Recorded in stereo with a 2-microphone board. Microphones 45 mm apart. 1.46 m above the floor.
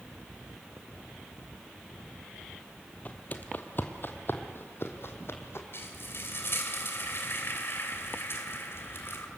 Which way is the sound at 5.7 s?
60° left (ahead or behind).